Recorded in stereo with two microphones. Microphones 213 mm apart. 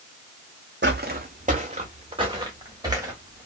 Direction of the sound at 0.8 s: 50° right (ahead or behind).